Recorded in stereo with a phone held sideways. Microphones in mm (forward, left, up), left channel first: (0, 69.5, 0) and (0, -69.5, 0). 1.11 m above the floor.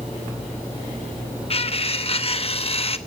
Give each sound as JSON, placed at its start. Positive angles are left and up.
{"t": 1.5, "sound": "cutlery clinking", "side_deg": 45, "distance_m": 0.9}